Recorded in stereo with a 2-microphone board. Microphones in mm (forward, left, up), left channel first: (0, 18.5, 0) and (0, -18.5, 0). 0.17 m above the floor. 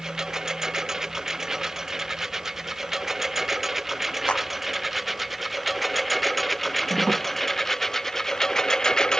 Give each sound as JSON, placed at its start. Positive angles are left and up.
{"t": 0.0, "sound": "a lawn mower", "side_deg": -15}
{"t": 4.3, "sound": "a clap", "side_deg": 30}